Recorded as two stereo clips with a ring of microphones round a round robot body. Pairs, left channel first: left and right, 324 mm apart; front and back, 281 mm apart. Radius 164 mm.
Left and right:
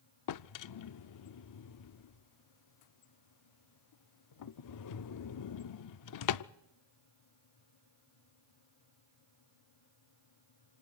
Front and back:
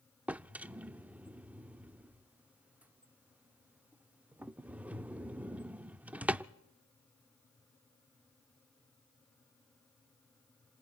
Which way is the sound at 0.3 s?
95° left.